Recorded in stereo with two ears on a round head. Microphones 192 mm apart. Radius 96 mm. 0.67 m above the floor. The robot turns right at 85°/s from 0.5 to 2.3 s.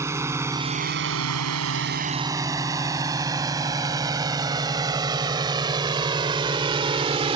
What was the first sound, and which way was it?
A drone, 15° right (ahead or behind).